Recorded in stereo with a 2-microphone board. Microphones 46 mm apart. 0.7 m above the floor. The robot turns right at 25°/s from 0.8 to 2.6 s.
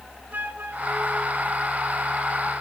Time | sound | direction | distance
0.3 | a flute | 45° right | 3 m